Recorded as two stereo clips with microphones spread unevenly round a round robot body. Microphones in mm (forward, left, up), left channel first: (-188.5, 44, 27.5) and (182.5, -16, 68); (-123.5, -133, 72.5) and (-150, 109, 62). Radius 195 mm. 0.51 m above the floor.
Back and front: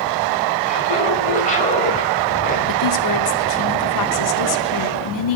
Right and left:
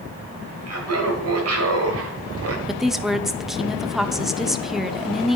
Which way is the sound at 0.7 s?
100° left.